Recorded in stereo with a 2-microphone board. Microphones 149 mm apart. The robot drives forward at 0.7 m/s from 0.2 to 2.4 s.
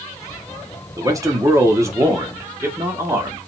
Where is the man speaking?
20° right (ahead or behind), 1.3 m.